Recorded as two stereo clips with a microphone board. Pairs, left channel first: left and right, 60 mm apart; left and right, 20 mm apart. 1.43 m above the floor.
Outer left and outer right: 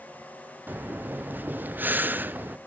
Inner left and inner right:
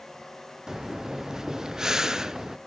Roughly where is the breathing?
Right.